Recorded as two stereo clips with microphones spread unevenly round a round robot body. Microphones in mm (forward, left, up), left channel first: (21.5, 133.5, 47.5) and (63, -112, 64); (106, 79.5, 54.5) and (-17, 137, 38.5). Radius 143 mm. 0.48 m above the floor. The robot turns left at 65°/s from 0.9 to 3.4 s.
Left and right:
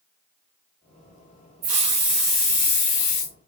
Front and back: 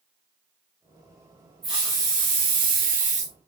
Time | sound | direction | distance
1.6 | a hiss | 135° right | 1.0 m